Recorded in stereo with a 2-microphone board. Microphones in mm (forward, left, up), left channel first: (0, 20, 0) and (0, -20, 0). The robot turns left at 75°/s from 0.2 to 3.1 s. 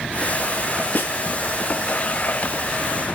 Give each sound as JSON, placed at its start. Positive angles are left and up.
{"t": 0.9, "sound": "a snare drum", "side_deg": 50, "distance_m": 2.0}